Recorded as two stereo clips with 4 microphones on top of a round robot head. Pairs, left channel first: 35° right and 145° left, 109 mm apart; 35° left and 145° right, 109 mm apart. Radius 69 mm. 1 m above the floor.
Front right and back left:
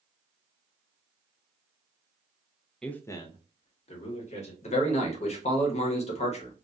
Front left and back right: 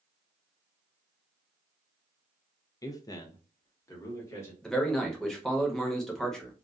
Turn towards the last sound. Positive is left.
turn(degrees=-50)